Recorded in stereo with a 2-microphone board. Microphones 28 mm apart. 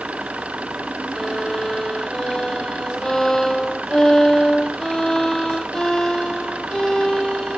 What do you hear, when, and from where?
0.0 s an engine running: 50° right (ahead or behind)
1.1 s a violin: 25° left (ahead or behind)